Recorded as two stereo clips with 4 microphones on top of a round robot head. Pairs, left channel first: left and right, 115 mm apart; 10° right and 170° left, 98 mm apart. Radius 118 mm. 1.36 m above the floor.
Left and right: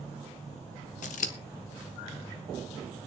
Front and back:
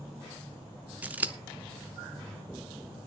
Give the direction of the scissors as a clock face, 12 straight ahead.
9 o'clock.